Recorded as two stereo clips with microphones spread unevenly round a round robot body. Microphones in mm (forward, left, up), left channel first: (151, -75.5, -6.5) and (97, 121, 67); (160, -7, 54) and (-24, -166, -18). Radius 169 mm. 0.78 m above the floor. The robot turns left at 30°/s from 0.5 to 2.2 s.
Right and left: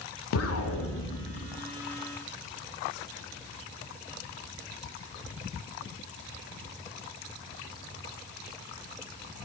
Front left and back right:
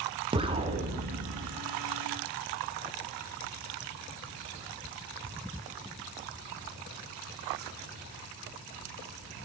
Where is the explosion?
60° right, 0.7 m; by 1.6 s 95° right, 0.7 m.